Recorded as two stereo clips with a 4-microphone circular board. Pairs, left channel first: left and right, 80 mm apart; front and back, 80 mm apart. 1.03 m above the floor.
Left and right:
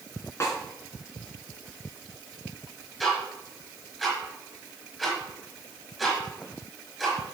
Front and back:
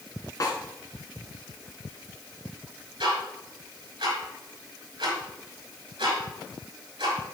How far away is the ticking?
About 5 m.